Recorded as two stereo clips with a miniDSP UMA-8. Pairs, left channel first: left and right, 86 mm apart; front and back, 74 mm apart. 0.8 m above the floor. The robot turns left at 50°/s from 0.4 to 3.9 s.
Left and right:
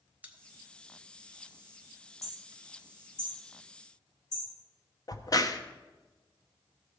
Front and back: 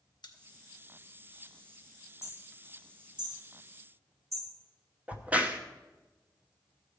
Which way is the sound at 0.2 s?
20° right.